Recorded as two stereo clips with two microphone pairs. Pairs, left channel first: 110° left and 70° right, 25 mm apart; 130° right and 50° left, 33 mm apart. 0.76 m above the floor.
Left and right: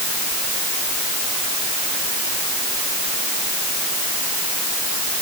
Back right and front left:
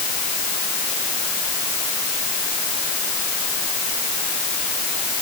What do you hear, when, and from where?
Only background noise.